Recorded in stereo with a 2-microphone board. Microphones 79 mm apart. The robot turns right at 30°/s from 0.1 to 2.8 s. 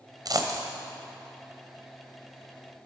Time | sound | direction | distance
0.2 | a dropped coin | 50° right (ahead or behind) | 1.0 m